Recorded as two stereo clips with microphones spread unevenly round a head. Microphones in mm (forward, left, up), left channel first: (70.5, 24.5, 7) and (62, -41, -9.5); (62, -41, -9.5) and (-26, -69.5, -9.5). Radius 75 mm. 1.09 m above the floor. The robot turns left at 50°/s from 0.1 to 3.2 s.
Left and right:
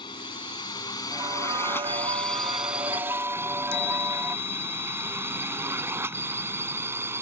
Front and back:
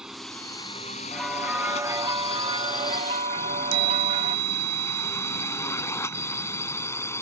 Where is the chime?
160° left.